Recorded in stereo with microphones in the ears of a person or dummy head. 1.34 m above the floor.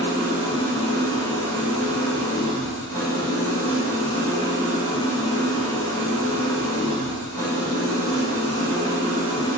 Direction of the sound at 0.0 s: 20° left (ahead or behind).